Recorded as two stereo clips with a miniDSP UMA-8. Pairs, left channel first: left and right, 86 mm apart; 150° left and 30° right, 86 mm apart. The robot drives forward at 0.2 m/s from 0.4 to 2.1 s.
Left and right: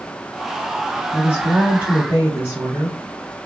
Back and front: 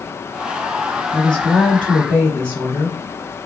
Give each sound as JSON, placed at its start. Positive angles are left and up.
{"t": 1.1, "sound": "a woman speaking", "azimuth_deg": -135, "distance_m": 1.3}